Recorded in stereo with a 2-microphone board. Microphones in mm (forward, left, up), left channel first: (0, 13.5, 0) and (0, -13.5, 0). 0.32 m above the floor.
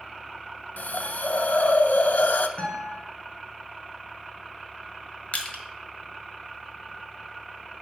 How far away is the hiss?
About 0.6 m.